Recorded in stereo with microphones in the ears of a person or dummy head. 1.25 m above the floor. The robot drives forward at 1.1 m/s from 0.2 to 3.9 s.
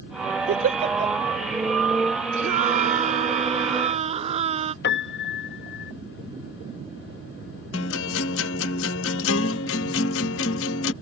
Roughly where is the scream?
Right.